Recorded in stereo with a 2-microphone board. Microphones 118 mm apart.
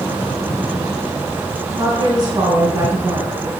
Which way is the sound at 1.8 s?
35° right (ahead or behind).